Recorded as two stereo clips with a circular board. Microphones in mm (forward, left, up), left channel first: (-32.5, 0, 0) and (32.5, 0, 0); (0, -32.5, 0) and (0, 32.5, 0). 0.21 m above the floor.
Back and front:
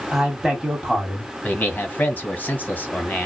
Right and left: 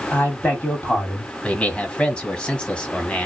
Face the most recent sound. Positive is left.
turn(degrees=-150)